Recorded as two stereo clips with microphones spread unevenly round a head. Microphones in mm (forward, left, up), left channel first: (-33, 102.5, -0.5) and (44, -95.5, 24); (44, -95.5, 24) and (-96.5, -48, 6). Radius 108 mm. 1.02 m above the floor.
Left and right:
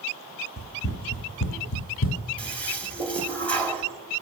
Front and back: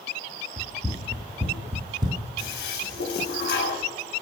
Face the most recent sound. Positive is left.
turn(degrees=30)